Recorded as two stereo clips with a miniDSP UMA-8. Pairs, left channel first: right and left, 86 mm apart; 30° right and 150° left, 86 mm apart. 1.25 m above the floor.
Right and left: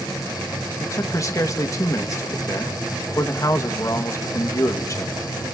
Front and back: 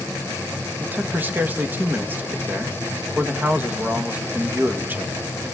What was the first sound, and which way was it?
A man speaking, 140° right.